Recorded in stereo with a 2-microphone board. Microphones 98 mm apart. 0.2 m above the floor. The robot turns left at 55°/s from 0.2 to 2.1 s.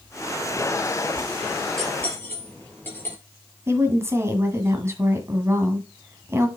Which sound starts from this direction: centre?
Cutlery clinking, at 1.8 s.